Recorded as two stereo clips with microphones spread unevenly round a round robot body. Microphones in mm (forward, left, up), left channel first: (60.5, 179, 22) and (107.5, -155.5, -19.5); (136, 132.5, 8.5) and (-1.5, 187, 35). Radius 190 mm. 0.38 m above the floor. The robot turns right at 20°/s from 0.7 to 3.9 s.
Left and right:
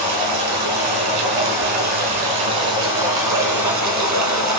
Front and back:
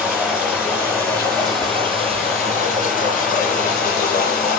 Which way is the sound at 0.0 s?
110° right.